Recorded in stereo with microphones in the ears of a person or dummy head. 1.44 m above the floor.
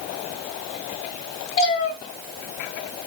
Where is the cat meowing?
35° left (ahead or behind), 1.3 m.